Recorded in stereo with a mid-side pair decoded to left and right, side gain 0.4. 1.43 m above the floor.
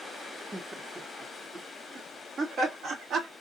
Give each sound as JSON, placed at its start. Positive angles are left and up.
{"t": 0.5, "sound": "laughter", "azimuth_deg": -25, "distance_m": 1.8}